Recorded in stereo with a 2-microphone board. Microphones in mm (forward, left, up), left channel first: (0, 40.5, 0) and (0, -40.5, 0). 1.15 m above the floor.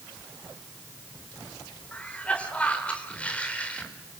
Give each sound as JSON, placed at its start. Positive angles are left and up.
{"t": 1.9, "sound": "a cough", "side_deg": 15, "distance_m": 4.5}